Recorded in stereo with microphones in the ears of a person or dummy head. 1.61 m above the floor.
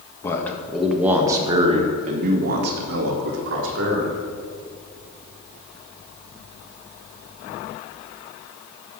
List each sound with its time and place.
0.2 s a man speaking: 20° left (ahead or behind), 1.5 m; by 4.2 s 70° right (ahead or behind), 3 m